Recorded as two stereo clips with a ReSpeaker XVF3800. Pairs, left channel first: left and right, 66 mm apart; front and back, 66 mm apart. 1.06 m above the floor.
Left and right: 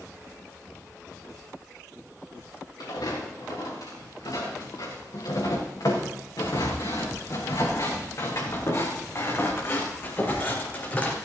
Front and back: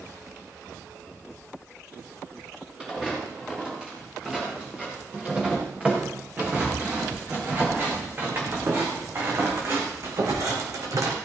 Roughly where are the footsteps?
Left.